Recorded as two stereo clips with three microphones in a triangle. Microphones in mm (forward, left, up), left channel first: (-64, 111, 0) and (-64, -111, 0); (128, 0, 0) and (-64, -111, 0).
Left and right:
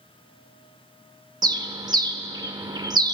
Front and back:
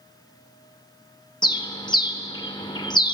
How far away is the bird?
About 0.6 m.